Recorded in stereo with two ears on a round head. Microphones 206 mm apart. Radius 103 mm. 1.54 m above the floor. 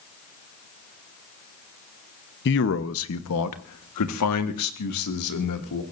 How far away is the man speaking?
About 1.0 m.